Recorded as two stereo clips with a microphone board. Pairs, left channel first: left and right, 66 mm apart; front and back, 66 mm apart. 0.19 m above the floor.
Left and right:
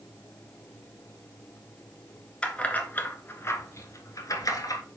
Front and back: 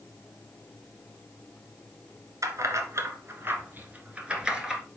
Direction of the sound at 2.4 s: 160° left.